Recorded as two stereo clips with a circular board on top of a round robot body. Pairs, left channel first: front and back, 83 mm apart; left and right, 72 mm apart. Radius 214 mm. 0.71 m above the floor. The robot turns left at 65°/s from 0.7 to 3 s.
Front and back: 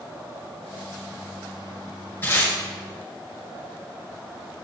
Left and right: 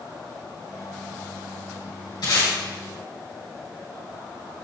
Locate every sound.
2.2 s tape being pulled: 70° left, 3.5 m; by 2.5 s 50° left, 3.5 m